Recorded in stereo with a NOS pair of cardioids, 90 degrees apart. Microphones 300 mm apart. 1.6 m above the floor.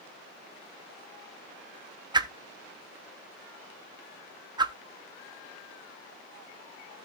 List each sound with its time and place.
2.1 s a whoosh: 15° right, 1.0 m